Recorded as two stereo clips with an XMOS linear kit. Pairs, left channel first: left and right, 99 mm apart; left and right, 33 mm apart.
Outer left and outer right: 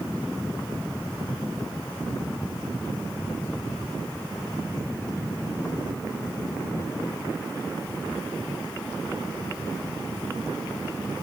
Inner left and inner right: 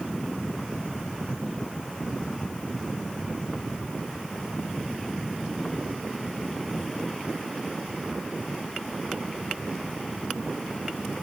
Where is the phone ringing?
I don't hear a phone ringing.